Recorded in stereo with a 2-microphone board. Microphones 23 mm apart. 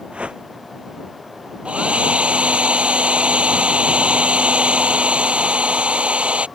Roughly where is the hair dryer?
Right.